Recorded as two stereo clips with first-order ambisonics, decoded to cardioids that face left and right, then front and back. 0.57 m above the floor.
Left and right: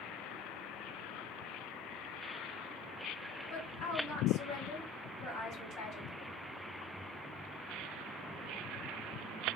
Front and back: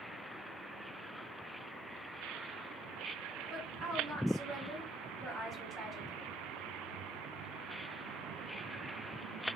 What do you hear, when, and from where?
3.5 s a woman speaking: 120° left, 2 m